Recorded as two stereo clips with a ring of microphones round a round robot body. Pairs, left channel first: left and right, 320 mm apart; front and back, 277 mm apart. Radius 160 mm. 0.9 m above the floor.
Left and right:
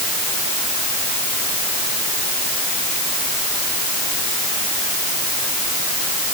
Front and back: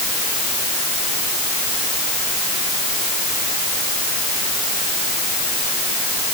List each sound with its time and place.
Only background noise.